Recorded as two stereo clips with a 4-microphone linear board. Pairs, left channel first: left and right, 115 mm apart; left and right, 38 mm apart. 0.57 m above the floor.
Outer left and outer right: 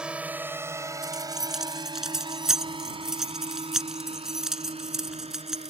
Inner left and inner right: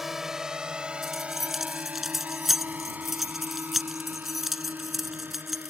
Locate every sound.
0.0 s a drone: 10° right (ahead or behind); by 5.7 s 60° right (ahead or behind)
1.0 s keys jangling: 5° right (ahead or behind)